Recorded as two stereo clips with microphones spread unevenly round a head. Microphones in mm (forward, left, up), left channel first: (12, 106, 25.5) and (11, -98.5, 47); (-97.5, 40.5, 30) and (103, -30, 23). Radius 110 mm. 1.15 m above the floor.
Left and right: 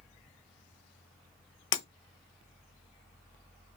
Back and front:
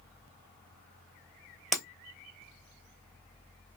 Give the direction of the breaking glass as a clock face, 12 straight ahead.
10 o'clock.